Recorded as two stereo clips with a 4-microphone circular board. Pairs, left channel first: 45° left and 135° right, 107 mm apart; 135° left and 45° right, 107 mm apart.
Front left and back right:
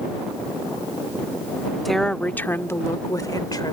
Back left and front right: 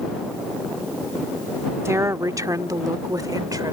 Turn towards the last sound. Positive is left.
turn(degrees=0)